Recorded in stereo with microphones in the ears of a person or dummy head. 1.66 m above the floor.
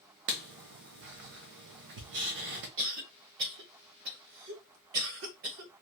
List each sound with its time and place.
0.3 s writing: 70° right (ahead or behind), 0.9 m
2.8 s a cough: 70° right (ahead or behind), 1.0 m